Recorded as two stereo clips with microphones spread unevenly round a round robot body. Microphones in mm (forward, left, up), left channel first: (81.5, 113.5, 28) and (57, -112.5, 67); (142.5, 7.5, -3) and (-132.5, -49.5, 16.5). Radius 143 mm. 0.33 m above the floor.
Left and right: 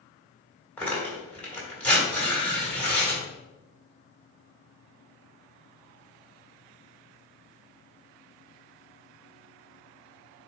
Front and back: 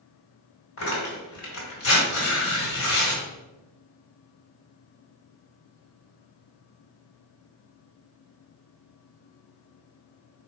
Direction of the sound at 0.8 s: 10° left.